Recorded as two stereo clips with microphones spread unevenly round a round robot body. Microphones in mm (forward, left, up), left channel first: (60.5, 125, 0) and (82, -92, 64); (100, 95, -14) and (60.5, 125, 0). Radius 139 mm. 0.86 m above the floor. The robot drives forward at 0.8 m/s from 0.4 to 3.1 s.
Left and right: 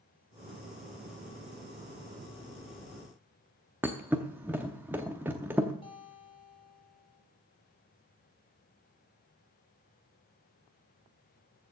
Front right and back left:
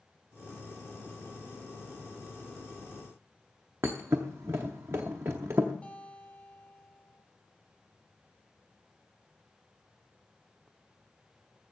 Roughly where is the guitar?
Ahead left.